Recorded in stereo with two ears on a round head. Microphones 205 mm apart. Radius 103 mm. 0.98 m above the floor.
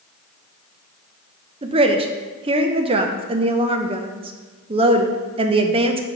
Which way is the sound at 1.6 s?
25° right (ahead or behind).